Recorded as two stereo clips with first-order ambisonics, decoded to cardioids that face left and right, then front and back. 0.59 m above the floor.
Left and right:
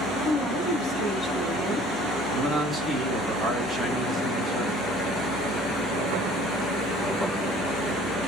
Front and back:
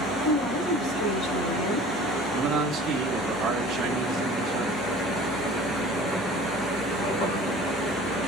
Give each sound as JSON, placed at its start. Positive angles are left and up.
{"t": 0.2, "sound": "a woman speaking", "azimuth_deg": 20, "distance_m": 3.0}
{"t": 2.3, "sound": "a man speaking", "azimuth_deg": 165, "distance_m": 1.2}